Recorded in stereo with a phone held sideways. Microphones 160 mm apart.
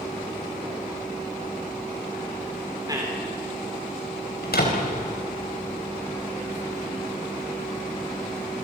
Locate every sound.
2.9 s a man speaking: 25° right (ahead or behind), 2.5 m
4.4 s a door slam: 80° left, 4.5 m